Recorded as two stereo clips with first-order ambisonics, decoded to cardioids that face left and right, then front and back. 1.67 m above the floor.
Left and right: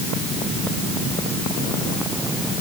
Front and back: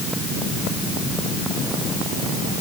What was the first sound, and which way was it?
Only background noise.